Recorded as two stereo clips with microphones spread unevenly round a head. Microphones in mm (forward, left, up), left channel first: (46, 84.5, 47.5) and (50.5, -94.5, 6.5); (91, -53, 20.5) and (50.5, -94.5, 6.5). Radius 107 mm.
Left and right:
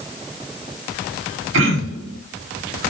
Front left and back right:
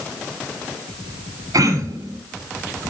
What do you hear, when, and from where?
1.5 s throat clearing: 120° right, 3 m